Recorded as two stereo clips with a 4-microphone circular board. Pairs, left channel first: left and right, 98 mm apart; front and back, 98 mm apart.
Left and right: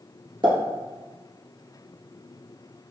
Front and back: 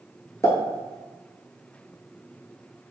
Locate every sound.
0.4 s a pop: 60° right, 1.4 m